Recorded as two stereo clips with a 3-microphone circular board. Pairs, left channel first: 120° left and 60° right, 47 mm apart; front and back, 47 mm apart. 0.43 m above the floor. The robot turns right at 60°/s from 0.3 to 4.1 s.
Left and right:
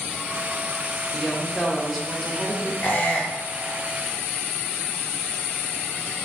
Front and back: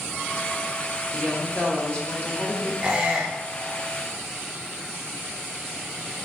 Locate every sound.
1.1 s a woman speaking: 25° right, 1.1 m; by 2.7 s 70° left, 1.1 m
2.8 s a squeak: 125° left, 1.0 m; by 3.8 s 175° right, 1.0 m